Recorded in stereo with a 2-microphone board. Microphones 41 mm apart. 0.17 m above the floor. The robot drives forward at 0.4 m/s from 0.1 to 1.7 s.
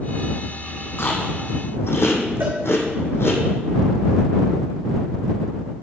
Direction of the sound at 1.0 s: 60° left (ahead or behind).